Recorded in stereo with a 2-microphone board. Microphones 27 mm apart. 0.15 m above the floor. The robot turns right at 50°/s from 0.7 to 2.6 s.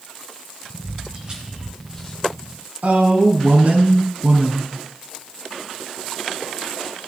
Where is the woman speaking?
55° right (ahead or behind), 3.5 m.